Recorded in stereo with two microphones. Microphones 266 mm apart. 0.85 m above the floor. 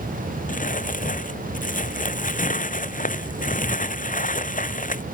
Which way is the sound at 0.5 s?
30° left (ahead or behind).